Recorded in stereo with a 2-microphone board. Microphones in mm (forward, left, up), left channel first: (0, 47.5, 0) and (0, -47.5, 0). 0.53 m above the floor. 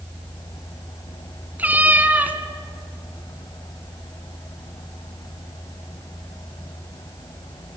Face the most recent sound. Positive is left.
turn(degrees=-15)  # may be behind; listen again after turning